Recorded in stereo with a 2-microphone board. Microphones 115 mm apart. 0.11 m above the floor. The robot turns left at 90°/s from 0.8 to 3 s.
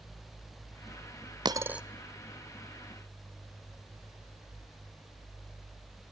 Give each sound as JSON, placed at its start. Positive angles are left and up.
{"t": 1.4, "sound": "a dropped coin", "side_deg": -35, "distance_m": 0.6}